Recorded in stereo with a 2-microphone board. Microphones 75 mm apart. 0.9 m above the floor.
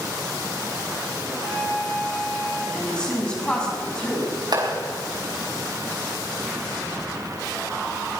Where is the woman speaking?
15° left (ahead or behind), 7 m.